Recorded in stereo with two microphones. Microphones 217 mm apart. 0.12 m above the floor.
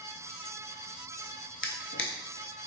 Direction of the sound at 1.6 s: 60° left (ahead or behind).